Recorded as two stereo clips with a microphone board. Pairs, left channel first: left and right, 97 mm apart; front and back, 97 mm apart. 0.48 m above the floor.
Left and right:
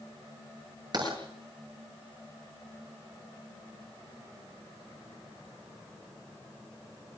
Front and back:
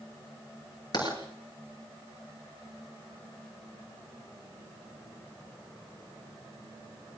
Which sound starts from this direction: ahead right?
Writing, at 0.9 s.